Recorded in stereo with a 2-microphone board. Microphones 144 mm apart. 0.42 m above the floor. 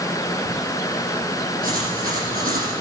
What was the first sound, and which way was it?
Writing, 80° right.